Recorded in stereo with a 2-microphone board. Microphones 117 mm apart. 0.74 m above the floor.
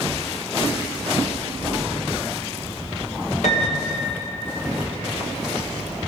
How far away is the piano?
About 1.3 m.